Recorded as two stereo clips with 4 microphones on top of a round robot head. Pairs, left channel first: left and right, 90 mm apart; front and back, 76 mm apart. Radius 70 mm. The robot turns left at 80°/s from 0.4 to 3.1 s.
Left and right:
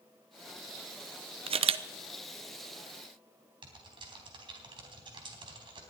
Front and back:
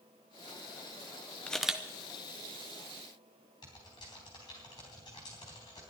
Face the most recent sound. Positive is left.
turn(degrees=-55)